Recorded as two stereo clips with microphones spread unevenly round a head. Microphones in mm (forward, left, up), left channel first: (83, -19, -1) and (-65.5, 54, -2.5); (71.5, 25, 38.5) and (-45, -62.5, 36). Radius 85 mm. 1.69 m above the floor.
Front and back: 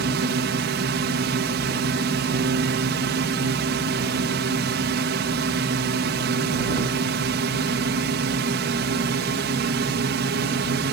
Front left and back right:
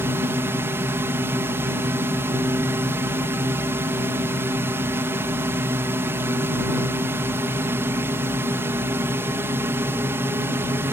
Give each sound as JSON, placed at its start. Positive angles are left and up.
{"t": 0.0, "sound": "a drone", "azimuth_deg": 145}